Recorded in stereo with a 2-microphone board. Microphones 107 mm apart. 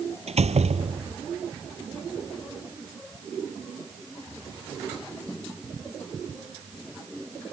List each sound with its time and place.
0.3 s a door slam: 80° right